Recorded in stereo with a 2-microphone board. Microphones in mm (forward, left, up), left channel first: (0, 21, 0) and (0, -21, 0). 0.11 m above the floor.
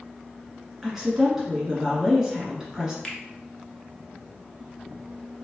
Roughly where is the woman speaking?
Centre.